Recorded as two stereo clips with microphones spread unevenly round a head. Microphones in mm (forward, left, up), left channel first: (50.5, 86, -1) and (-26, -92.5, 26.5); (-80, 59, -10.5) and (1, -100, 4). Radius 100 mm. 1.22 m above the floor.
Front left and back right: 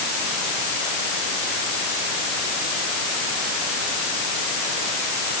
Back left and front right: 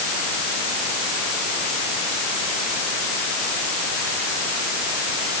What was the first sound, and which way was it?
Only background noise.